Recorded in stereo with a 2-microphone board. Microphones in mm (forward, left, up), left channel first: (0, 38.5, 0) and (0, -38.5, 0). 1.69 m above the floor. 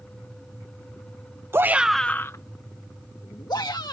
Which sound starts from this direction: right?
A shout, at 1.5 s.